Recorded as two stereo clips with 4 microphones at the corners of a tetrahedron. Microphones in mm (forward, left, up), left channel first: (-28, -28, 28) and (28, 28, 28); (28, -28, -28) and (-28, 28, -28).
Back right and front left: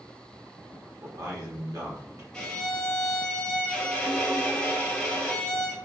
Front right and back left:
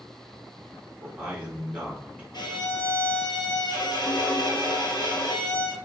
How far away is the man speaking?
About 1.2 m.